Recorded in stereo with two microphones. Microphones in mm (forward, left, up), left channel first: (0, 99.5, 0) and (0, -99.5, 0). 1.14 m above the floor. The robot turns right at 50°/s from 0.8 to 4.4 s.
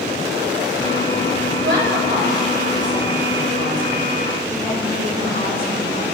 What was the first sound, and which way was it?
A woman speaking, 85° right.